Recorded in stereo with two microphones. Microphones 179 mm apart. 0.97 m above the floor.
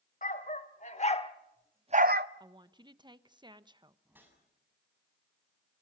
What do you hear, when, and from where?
0.2 s a dog barking: 50° left (ahead or behind), 2.5 m; by 2.3 s 65° right (ahead or behind), 0.8 m
2.4 s a woman speaking: 25° right (ahead or behind), 1.0 m
4.0 s a whoosh: 10° right (ahead or behind), 7.5 m